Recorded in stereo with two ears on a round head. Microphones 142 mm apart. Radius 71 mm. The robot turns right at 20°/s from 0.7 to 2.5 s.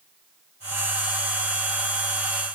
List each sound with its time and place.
Only background noise.